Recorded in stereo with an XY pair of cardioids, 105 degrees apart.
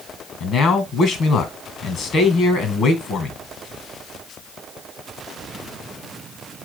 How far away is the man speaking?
About 2 m.